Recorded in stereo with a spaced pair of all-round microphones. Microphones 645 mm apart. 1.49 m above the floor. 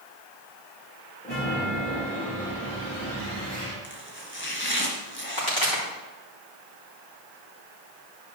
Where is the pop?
45° left (ahead or behind), 4 m.